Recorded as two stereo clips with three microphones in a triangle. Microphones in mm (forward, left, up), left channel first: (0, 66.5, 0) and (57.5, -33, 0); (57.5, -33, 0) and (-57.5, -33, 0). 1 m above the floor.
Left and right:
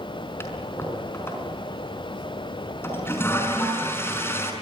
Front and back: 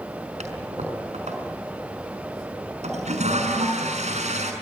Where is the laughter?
No laughter in this recording.